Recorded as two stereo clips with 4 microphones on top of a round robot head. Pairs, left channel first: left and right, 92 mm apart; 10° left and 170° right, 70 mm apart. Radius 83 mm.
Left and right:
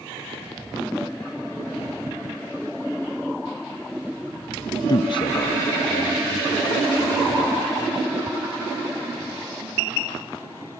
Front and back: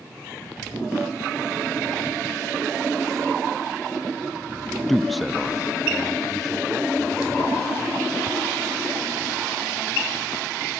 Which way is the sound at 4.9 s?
95° left.